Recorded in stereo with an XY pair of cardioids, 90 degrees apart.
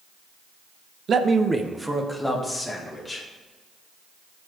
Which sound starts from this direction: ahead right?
A man speaking, at 1.1 s.